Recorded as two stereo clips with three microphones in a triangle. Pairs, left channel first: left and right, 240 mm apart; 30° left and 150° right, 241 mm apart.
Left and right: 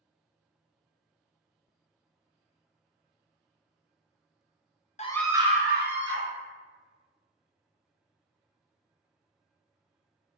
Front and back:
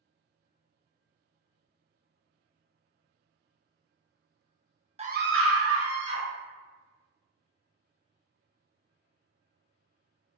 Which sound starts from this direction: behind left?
A scream, at 5.0 s.